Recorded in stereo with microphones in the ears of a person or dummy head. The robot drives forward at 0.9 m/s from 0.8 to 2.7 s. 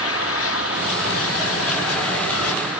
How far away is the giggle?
I don't hear a giggle.